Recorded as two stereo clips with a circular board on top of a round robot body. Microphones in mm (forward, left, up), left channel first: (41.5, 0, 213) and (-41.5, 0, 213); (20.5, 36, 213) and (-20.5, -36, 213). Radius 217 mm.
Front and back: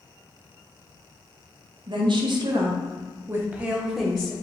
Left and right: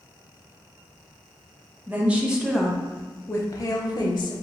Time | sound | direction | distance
1.9 | a woman speaking | 175° left | 1.0 m